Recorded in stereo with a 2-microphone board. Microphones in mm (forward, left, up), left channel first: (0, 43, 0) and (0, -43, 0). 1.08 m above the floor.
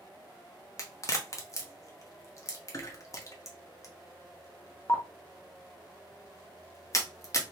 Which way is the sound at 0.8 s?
40° left (ahead or behind).